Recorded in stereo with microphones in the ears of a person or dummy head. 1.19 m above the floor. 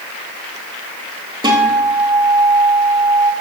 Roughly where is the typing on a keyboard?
No typing on a keyboard in this recording.